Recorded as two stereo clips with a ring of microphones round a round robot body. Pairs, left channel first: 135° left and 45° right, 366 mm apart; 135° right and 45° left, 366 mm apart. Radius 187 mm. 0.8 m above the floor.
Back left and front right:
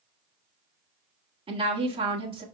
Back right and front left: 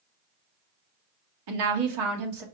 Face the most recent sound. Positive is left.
turn(degrees=30)